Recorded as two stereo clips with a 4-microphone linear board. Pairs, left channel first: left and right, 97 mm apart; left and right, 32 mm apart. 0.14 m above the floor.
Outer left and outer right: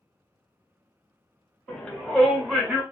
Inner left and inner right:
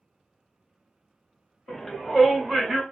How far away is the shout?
About 1.4 m.